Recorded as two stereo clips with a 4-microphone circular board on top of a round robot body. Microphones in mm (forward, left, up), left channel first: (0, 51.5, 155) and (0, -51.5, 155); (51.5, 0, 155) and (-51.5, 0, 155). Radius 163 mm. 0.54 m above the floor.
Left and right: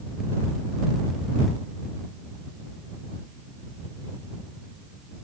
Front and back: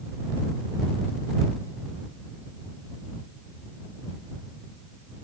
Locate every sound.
Only background noise.